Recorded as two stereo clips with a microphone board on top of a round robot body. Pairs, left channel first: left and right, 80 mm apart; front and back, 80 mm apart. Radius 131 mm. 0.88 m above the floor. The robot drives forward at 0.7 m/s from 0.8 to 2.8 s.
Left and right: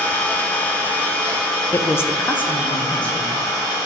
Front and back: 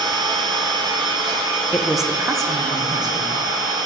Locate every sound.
0.0 s an engine running: 160° left, 1.0 m; by 3.9 s 175° left, 2.5 m
1.7 s a woman speaking: 50° left, 0.5 m; by 3.8 s 160° left, 0.8 m